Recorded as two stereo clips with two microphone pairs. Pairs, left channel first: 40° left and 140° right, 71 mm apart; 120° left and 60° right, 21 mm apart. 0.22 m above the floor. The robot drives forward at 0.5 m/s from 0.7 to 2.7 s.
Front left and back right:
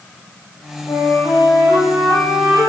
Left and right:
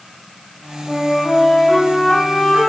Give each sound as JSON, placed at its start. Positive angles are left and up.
{"t": 0.9, "sound": "a flute", "azimuth_deg": 65, "distance_m": 5.5}